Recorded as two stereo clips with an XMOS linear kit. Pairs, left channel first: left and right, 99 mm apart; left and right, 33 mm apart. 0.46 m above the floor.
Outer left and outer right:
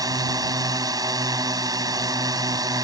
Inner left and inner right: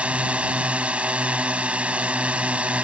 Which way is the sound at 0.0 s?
40° right (ahead or behind).